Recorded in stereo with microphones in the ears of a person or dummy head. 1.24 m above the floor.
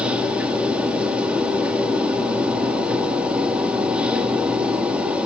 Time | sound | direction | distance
0.0 | a machine running | 10° right (ahead or behind) | 1.2 m